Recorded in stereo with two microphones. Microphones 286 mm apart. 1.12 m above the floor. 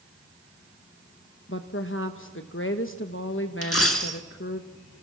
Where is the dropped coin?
55° left (ahead or behind), 1.6 m.